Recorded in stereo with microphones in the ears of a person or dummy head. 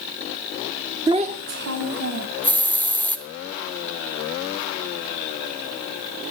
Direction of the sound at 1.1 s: 20° right (ahead or behind).